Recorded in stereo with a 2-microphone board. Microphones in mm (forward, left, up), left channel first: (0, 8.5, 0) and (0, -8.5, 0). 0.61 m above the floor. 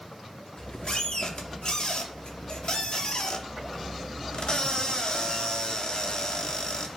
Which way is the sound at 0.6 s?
45° left (ahead or behind).